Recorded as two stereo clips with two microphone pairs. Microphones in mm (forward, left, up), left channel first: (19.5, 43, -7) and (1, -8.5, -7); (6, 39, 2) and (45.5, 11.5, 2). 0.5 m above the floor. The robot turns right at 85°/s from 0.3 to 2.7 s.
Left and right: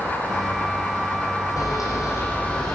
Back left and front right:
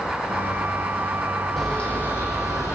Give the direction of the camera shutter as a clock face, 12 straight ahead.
10 o'clock.